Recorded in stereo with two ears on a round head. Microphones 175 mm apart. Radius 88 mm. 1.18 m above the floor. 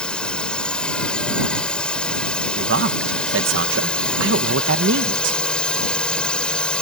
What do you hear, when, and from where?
0.0 s a drone: 5° left (ahead or behind)
2.6 s a man speaking: 70° right (ahead or behind)